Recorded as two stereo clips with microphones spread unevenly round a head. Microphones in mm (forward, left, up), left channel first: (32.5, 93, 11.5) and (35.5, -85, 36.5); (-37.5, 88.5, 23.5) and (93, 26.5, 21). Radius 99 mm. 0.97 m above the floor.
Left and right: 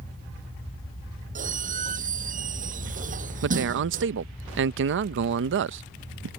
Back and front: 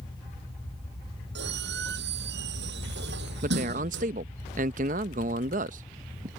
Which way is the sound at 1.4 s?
40° right.